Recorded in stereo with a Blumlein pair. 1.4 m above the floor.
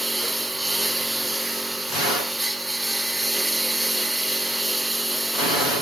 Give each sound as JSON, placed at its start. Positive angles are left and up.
{"t": 0.0, "sound": "a lawn mower", "azimuth_deg": -5}